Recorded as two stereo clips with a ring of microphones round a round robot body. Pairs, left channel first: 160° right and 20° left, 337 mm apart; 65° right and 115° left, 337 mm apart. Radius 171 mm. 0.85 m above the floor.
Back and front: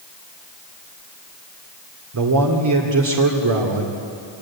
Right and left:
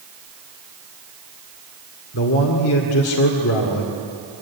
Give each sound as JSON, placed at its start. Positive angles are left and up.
{"t": 2.1, "sound": "a man speaking", "azimuth_deg": -20, "distance_m": 2.0}